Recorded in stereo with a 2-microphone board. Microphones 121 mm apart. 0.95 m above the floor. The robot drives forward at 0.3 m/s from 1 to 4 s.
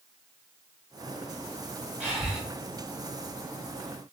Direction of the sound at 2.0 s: 10° right (ahead or behind).